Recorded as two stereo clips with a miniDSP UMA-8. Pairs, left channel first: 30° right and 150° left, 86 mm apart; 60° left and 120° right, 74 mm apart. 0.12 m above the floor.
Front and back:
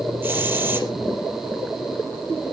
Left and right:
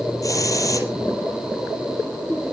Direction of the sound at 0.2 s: 90° left.